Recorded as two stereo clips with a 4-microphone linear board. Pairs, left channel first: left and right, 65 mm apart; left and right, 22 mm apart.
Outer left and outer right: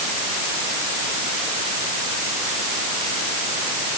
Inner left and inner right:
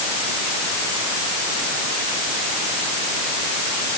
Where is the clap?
I don't hear a clap.